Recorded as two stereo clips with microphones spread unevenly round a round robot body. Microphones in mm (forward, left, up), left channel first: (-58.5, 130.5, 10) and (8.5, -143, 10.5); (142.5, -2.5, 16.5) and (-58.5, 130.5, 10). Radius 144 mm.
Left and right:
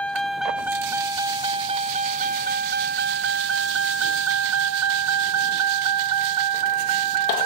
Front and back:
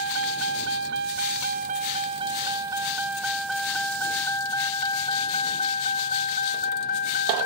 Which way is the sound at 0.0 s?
170° right.